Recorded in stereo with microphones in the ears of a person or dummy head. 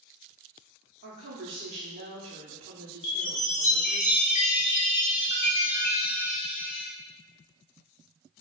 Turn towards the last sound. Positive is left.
turn(degrees=35)  # may be behind; listen again after turning